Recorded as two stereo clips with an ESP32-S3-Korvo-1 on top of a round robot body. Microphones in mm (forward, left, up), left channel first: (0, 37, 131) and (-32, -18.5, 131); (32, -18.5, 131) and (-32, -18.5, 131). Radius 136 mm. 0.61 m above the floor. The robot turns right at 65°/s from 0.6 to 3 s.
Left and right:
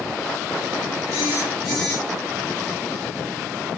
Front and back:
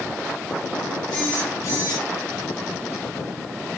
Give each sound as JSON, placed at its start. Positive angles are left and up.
{"t": 1.1, "sound": "a phone buzzing", "azimuth_deg": -75, "distance_m": 4.0}